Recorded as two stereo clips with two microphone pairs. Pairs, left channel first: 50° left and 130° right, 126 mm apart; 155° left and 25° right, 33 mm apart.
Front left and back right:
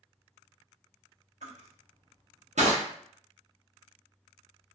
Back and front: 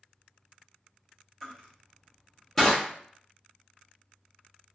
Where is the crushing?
130° right, 0.8 m.